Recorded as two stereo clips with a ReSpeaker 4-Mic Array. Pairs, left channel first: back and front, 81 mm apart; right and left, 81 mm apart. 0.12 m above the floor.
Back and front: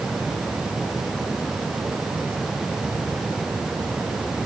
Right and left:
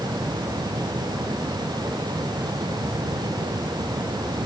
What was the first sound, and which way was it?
Only background noise.